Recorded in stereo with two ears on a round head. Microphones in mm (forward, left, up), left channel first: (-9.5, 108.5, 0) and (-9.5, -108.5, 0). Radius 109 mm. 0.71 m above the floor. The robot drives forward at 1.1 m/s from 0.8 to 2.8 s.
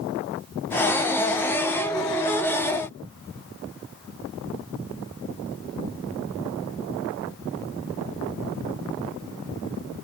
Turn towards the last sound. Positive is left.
No sound to turn to.